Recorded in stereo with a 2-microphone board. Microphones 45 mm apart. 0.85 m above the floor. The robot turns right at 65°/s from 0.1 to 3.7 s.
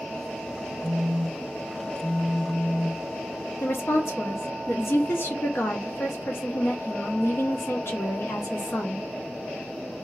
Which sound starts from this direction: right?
A phone buzzing, at 0.8 s.